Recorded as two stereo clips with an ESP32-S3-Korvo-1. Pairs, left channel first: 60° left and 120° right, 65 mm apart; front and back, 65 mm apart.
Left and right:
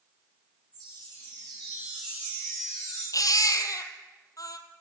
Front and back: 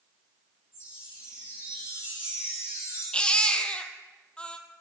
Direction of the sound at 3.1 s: 70° left.